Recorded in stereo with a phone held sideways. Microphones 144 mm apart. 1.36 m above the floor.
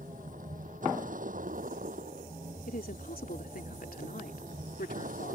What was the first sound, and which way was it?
A vehicle, 65° right (ahead or behind).